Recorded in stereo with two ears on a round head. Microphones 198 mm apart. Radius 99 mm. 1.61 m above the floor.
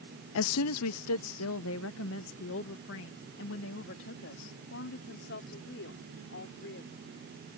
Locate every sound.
0.3 s a woman speaking: 65° left (ahead or behind); by 7.1 s 55° left (ahead or behind)